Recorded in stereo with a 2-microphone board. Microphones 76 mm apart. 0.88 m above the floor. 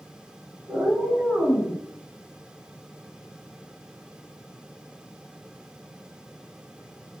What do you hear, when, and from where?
0.7 s a cat meowing: 55° right (ahead or behind), 1.2 m; by 1.8 s 50° left (ahead or behind), 0.8 m